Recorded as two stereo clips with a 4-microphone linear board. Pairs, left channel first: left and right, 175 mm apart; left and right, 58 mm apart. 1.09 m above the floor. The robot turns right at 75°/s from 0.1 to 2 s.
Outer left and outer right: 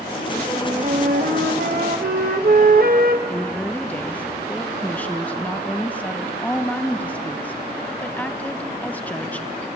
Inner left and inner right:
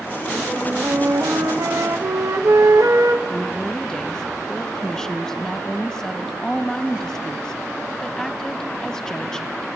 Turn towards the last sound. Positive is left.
turn(degrees=10)  # may be behind; listen again after turning